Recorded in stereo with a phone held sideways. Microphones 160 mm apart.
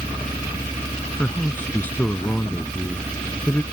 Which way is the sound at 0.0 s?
20° left (ahead or behind).